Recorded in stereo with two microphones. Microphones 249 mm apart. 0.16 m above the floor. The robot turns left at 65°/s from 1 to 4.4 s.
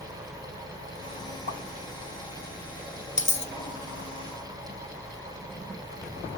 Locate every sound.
1.5 s a pop: 40° right (ahead or behind), 0.7 m; by 1.6 s 35° right (ahead or behind), 0.7 m
3.2 s a dropped coin: 30° left (ahead or behind), 0.8 m; by 3.5 s 45° left (ahead or behind), 0.8 m